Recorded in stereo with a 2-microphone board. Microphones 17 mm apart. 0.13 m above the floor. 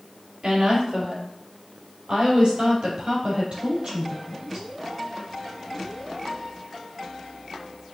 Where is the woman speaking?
60° right (ahead or behind), 3.5 m.